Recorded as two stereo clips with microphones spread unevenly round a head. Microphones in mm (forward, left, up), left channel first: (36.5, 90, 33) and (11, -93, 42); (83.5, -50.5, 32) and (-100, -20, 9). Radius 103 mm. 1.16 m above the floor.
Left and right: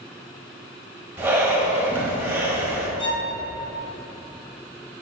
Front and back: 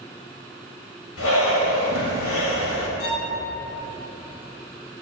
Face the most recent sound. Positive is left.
turn(degrees=15)